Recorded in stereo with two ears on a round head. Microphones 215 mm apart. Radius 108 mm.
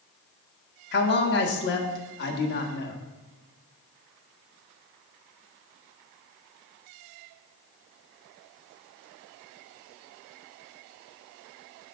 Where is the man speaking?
45° left (ahead or behind), 1.5 m.